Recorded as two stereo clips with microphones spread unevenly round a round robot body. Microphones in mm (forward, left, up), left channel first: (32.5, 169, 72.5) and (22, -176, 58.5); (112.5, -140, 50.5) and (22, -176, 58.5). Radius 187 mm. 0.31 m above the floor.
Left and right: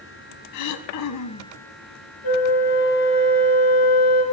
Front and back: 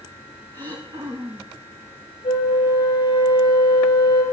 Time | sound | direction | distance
0.5 | throat clearing | 135° left | 0.7 m
2.2 | a flute | 60° left | 3 m